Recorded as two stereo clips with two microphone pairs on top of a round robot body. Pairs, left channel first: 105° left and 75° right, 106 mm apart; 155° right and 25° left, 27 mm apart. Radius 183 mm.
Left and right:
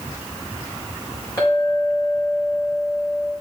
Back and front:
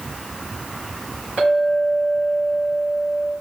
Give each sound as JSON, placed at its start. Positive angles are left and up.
{"t": 1.4, "sound": "a clink", "azimuth_deg": 45, "distance_m": 4.5}